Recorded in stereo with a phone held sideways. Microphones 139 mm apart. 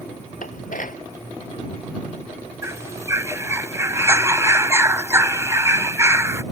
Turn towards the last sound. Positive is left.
turn(degrees=-20)  # may be behind; listen again after turning